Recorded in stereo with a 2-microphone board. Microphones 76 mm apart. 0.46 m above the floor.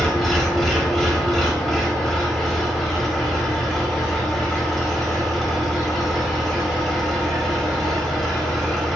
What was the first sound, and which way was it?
An engine running, centre (ahead or behind).